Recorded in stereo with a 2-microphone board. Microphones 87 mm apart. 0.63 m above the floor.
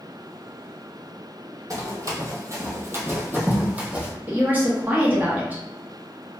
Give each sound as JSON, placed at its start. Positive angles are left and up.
{"t": 1.7, "sound": "running footsteps", "side_deg": -45, "distance_m": 0.9}
{"t": 4.3, "sound": "a woman speaking", "side_deg": -20, "distance_m": 0.7}